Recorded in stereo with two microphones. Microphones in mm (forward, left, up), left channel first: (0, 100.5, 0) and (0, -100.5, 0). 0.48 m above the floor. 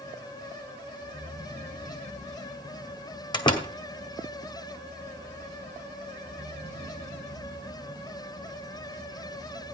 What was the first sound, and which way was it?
A door slam, 25° left (ahead or behind).